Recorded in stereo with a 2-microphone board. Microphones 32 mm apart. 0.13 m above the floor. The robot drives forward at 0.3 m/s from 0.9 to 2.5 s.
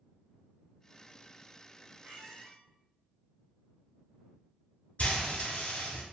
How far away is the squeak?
About 1.2 m.